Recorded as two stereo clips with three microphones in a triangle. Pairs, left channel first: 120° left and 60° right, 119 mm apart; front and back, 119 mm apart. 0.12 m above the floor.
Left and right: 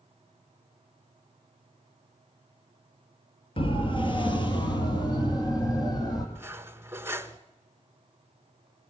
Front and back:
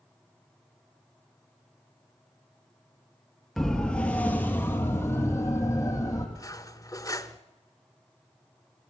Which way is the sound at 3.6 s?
85° left.